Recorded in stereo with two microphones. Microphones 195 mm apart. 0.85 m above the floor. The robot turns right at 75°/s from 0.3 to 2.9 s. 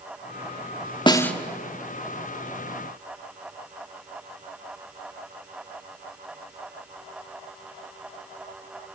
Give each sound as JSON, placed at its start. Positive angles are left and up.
{"t": 1.1, "sound": "a snare drum", "side_deg": 25, "distance_m": 1.2}